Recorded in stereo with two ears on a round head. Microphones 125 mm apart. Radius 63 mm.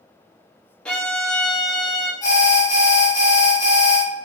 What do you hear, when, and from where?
0.8 s a violin: 10° left (ahead or behind), 0.9 m
2.2 s an alarm: 25° left (ahead or behind), 1.1 m